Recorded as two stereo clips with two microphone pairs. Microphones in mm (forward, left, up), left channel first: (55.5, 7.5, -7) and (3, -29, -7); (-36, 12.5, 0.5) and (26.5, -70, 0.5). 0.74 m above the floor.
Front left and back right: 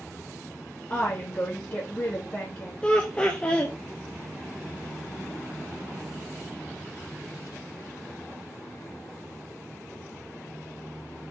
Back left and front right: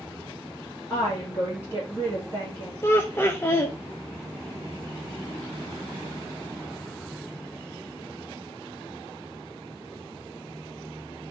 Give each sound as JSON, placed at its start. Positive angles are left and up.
{"t": 0.9, "sound": "a woman speaking", "azimuth_deg": 75, "distance_m": 1.5}
{"t": 2.8, "sound": "laughter", "azimuth_deg": 85, "distance_m": 0.5}